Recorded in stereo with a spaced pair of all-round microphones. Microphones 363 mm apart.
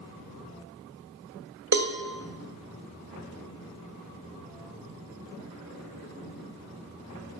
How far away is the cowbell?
About 0.6 m.